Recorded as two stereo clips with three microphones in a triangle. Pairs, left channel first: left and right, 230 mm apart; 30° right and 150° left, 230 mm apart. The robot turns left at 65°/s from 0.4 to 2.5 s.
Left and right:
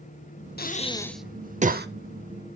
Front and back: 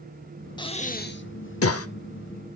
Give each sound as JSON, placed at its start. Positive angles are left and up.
{"t": 0.6, "sound": "breathing", "azimuth_deg": 40, "distance_m": 0.5}